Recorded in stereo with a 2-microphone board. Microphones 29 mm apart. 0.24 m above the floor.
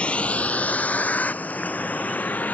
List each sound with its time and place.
0.0 s a vehicle: 45° left (ahead or behind); by 2.5 s 70° left (ahead or behind)